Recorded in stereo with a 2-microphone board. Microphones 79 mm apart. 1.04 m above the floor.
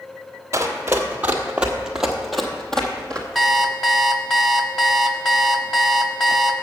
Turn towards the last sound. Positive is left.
turn(degrees=5)  # may be behind; listen again after turning